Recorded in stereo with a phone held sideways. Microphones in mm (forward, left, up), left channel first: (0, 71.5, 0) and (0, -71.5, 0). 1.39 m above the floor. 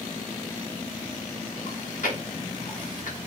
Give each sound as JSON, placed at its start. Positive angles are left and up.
{"t": 1.7, "sound": "chewing", "side_deg": 65, "distance_m": 1.7}